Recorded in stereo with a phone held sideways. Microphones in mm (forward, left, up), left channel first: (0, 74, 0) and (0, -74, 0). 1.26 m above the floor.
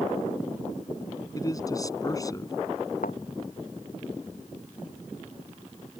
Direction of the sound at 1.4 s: 25° left (ahead or behind).